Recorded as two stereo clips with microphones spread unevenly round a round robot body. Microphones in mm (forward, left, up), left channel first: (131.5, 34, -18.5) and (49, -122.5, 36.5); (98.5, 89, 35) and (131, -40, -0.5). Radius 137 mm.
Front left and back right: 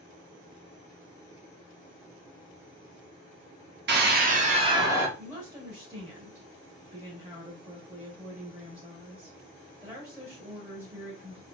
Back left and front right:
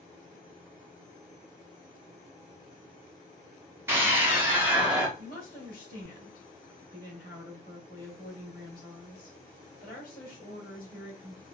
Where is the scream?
115° right, 1.1 m; by 5.1 s 20° right, 1.1 m.